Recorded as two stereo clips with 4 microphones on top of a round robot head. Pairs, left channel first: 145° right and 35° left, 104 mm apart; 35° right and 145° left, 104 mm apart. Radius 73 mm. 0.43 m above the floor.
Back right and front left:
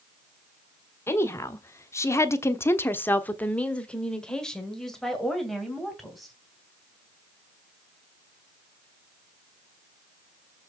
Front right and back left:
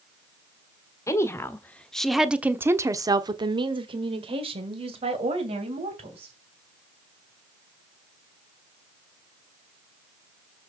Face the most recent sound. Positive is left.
turn(degrees=125)